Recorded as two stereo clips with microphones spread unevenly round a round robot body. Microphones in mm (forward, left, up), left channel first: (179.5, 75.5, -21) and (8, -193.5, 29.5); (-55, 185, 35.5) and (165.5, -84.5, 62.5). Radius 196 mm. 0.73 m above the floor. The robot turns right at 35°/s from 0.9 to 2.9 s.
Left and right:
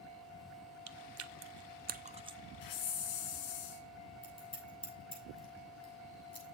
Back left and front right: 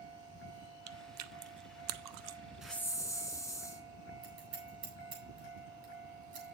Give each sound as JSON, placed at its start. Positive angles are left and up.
{"t": 0.9, "sound": "chewing", "azimuth_deg": -90, "distance_m": 0.7}
{"t": 2.6, "sound": "a hiss", "azimuth_deg": 35, "distance_m": 2.0}
{"t": 4.2, "sound": "scissors", "azimuth_deg": -15, "distance_m": 7.5}